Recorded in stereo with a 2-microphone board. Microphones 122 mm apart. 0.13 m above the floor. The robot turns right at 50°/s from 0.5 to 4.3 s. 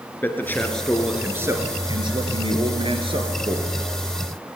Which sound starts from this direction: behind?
A man speaking, at 0.2 s.